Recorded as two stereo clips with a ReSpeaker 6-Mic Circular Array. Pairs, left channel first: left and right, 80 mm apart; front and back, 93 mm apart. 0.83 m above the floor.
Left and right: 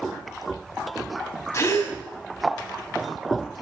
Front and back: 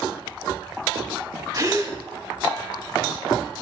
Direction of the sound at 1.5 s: 140° left.